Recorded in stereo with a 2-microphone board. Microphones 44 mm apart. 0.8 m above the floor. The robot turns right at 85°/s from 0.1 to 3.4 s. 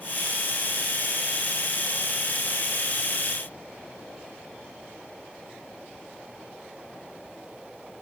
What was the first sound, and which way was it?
Only background noise.